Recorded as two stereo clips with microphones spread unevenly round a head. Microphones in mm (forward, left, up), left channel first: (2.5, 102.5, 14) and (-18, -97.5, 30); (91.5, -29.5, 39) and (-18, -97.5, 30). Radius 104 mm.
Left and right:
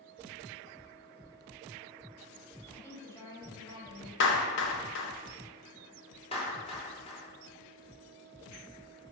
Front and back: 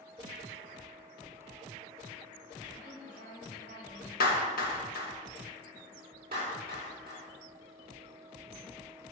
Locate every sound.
2.7 s a woman speaking: 165° left, 4 m; by 4.1 s 160° left, 4.5 m
4.2 s a clap: 50° left, 1.4 m
6.3 s a clap: 150° left, 3 m